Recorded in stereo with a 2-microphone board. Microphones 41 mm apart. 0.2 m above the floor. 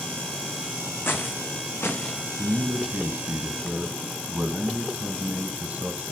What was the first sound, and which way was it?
Footsteps, 75° left (ahead or behind).